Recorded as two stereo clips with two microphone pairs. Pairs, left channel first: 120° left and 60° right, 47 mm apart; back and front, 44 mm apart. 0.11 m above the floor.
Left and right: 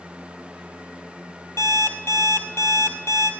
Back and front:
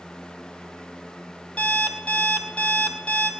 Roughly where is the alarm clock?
Behind left.